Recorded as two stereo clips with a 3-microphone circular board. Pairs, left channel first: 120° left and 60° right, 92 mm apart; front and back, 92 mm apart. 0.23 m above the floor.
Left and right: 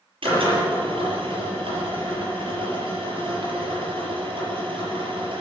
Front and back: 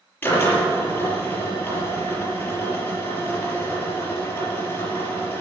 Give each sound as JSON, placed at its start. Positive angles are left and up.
{"t": 0.2, "sound": "a drill", "azimuth_deg": -70, "distance_m": 6.0}